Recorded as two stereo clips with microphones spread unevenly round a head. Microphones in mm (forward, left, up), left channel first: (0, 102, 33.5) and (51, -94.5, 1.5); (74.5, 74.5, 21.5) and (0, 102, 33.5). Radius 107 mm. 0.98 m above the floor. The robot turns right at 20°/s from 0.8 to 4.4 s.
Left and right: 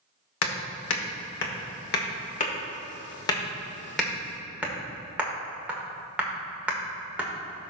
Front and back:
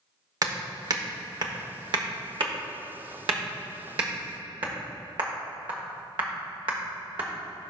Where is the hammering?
125° left, 1.2 m; by 7.3 s 160° right, 1.2 m.